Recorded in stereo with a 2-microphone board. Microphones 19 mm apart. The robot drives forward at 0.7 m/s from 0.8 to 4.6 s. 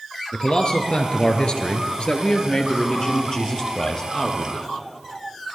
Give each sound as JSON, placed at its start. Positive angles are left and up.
{"t": 0.3, "sound": "a man speaking", "side_deg": 50, "distance_m": 2.5}